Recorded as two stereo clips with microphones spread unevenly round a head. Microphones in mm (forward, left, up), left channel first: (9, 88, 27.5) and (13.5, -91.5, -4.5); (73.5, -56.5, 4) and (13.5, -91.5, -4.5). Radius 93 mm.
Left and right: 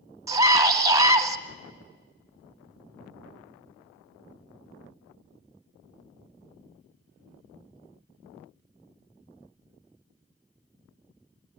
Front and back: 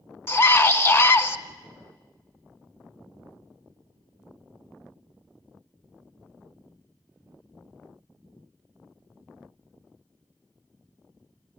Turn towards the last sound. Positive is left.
turn(degrees=-25)